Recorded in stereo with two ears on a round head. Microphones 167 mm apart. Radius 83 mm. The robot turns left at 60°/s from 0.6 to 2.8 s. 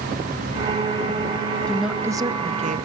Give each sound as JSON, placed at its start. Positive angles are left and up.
{"t": 1.7, "sound": "a woman speaking", "azimuth_deg": 5, "distance_m": 0.7}